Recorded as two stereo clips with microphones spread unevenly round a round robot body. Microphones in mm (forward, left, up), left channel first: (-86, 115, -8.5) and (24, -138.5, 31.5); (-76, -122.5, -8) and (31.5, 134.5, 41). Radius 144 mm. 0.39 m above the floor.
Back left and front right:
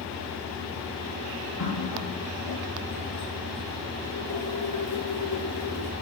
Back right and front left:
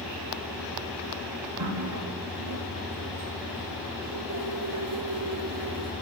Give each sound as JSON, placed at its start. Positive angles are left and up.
{"t": 1.6, "sound": "a running tap", "azimuth_deg": 90, "distance_m": 5.5}